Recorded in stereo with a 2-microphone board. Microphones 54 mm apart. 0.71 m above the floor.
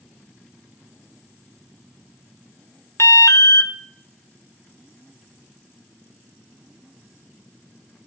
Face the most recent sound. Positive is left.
turn(degrees=65)  # may be behind; listen again after turning